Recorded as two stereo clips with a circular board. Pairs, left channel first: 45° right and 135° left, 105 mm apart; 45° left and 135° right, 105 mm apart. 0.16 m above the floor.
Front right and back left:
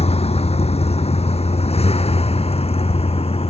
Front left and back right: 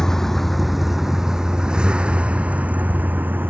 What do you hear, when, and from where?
0.0 s a vehicle: 40° right; by 3.5 s 65° right